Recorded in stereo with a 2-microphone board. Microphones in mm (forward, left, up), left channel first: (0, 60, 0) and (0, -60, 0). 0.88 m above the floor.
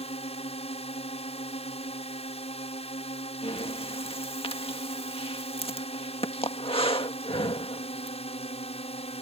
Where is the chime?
I don't hear a chime.